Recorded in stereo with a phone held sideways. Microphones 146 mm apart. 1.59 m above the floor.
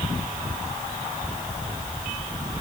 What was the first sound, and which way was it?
Only background noise.